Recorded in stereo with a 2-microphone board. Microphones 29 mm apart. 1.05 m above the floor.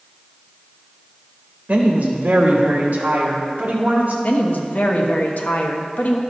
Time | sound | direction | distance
1.7 | a woman speaking | 65° right (ahead or behind) | 1.1 m
4.2 | a woman speaking | 70° left (ahead or behind) | 1.0 m